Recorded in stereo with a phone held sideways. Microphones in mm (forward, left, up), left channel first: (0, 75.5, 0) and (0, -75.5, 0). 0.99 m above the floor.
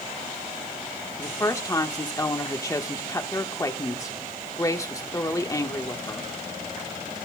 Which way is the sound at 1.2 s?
20° left (ahead or behind).